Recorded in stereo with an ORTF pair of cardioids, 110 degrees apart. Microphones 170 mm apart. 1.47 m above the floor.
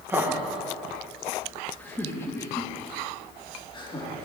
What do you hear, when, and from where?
0.1 s laughter: 15° right, 2.0 m; by 4.2 s 30° left, 3 m